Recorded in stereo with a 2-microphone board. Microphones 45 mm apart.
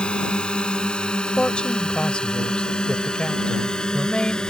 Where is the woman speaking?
20° left (ahead or behind).